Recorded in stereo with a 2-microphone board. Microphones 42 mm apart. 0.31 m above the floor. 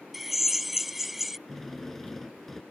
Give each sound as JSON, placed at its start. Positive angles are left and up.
{"t": 0.1, "sound": "a drill", "side_deg": -5}
{"t": 1.5, "sound": "a drill", "side_deg": 5}